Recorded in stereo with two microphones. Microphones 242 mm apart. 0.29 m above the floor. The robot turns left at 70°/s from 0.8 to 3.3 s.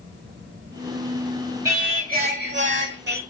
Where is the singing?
15° right, 0.9 m; by 3.2 s 125° right, 0.9 m.